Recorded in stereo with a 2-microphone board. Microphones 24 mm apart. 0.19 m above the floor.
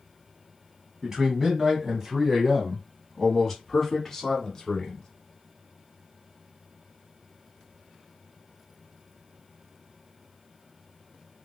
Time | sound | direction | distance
1.0 | a man speaking | 25° right (ahead or behind) | 1.5 m